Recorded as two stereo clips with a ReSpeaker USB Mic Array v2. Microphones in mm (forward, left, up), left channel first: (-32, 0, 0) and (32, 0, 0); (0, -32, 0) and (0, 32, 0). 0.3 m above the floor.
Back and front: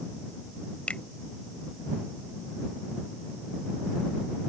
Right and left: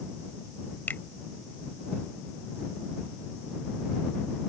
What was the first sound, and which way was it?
A finger snap, 120° right.